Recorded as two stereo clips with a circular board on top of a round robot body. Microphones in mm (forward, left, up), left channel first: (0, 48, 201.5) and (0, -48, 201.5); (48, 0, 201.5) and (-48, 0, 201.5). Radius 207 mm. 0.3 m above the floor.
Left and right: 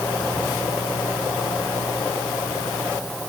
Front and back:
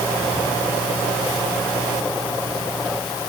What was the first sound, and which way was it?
Only background noise.